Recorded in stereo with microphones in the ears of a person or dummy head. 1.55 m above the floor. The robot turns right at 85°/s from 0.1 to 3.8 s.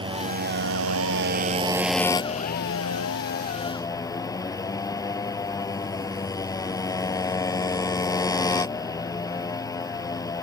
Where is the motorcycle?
155° right; by 10.4 s 160° left.